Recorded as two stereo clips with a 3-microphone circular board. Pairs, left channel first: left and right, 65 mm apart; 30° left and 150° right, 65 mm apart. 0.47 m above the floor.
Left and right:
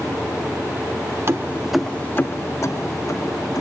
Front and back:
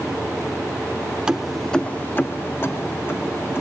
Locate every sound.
1.3 s keys jangling: 80° right, 0.8 m; by 3.6 s 80° left, 2.5 m